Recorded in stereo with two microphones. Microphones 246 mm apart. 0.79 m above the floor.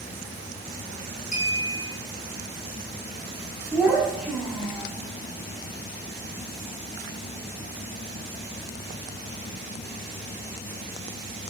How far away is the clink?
About 1.2 m.